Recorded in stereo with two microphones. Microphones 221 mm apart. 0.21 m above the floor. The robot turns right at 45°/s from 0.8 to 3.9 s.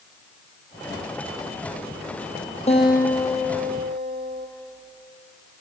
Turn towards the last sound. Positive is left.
turn(degrees=-155)